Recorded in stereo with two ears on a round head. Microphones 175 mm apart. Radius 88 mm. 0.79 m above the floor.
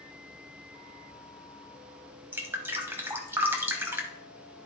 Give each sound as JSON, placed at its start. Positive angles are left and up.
{"t": 2.3, "sound": "dripping", "side_deg": -10, "distance_m": 0.9}